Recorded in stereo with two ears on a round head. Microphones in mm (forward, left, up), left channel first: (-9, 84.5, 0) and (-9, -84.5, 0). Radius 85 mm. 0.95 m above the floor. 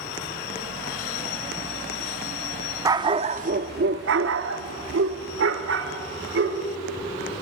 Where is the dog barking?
20° right (ahead or behind), 0.7 m; by 6.6 s 65° right (ahead or behind), 1.9 m.